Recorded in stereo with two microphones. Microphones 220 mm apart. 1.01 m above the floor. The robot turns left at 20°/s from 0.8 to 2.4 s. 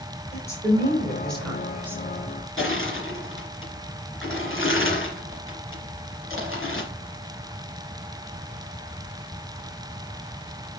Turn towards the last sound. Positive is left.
turn(degrees=65)  # may be behind; listen again after turning